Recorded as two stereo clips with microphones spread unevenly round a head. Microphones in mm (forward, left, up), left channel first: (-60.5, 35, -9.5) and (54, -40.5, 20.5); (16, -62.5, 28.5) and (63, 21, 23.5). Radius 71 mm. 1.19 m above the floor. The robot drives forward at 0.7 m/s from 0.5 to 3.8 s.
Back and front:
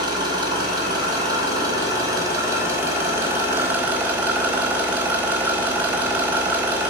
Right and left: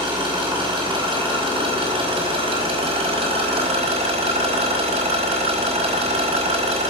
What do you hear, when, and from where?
0.0 s an engine running: 30° left, 5.5 m; by 6.9 s 45° left, 4 m